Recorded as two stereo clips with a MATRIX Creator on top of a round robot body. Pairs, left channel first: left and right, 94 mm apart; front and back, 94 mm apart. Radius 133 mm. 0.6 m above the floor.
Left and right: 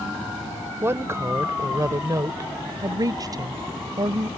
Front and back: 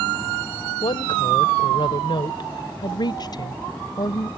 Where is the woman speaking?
25° right; by 4.3 s 45° right.